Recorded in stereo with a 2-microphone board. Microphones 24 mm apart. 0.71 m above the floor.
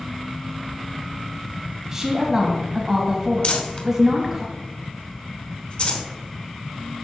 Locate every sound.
1.9 s a woman speaking: 20° right (ahead or behind), 1.0 m
3.4 s crumpling: 50° left (ahead or behind), 1.0 m